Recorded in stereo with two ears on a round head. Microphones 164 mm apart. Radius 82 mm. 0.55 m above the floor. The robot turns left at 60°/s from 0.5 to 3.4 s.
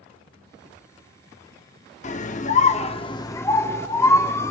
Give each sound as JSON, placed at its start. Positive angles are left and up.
{"t": 2.0, "sound": "a scream", "azimuth_deg": 105, "distance_m": 0.9}